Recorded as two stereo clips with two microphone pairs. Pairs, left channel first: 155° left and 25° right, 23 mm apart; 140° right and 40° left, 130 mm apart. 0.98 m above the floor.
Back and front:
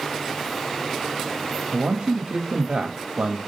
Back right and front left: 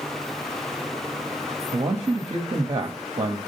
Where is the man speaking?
10° right, 1.0 m.